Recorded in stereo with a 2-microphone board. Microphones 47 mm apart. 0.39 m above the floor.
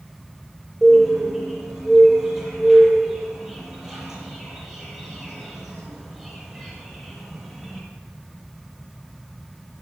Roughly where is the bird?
Centre.